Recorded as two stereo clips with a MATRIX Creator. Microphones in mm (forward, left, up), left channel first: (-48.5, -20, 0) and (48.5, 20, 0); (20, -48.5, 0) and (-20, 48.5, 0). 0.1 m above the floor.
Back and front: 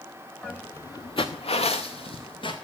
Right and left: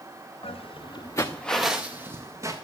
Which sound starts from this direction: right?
Footsteps, at 0.4 s.